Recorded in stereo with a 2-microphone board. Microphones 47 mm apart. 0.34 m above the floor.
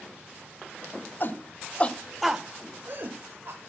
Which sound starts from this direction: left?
A shout, at 1.2 s.